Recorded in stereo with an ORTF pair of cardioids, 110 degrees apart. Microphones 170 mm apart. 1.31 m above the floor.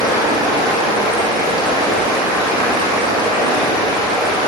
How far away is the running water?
About 4.5 m.